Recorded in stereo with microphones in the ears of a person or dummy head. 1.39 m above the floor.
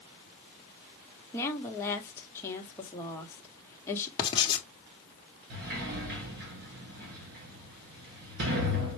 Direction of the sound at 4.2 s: 25° left (ahead or behind).